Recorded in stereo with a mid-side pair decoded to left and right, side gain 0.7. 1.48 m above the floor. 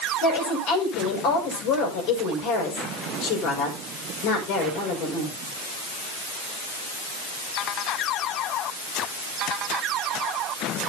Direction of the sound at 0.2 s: 65° left.